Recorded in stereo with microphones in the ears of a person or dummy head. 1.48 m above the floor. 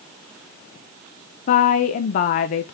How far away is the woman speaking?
About 0.6 m.